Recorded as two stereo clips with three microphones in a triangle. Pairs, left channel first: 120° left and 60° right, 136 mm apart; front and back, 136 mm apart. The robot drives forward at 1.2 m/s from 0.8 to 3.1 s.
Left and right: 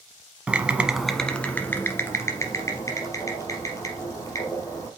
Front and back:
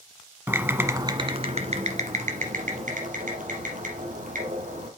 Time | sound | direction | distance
0.5 | typing on a keyboard | 130° right | 1.0 m